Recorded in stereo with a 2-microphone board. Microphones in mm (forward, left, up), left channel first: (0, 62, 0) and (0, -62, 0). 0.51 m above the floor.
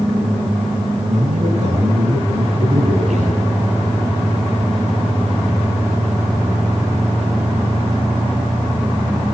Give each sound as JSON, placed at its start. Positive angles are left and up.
{"t": 1.1, "sound": "a man speaking", "side_deg": -65, "distance_m": 8.5}